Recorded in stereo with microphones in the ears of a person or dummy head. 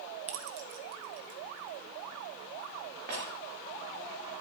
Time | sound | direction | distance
0.3 | keys jangling | 35° right (ahead or behind) | 0.7 m